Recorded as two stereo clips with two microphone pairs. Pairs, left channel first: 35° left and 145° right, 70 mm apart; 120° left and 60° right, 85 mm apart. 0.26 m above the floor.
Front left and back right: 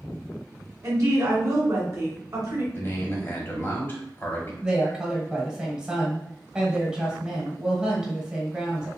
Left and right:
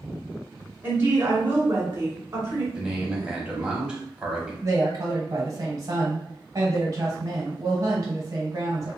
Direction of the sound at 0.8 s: 115° right.